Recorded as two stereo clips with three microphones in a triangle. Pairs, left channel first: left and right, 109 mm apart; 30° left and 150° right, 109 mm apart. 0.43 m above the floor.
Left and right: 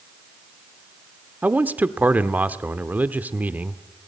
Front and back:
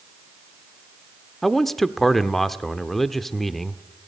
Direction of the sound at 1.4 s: 50° right.